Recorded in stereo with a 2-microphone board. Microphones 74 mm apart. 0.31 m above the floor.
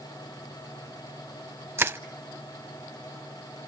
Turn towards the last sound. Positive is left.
turn(degrees=-35)  # may be behind; listen again after turning